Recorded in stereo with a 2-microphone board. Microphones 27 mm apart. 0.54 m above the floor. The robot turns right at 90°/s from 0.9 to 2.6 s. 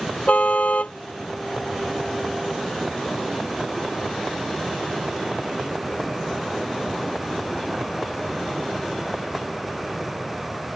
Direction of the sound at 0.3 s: 60° left (ahead or behind).